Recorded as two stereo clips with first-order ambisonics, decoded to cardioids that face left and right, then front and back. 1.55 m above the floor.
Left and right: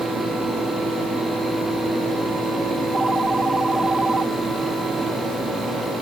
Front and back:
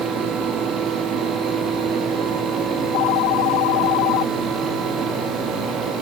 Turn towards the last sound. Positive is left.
turn(degrees=-10)